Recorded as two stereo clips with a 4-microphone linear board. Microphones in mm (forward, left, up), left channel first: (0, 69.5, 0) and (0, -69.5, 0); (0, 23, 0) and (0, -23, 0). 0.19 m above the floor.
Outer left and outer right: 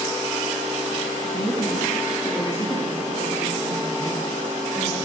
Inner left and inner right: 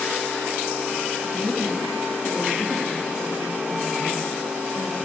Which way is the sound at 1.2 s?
30° left (ahead or behind).